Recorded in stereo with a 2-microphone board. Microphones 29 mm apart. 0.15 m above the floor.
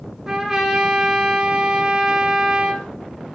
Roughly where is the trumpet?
Centre.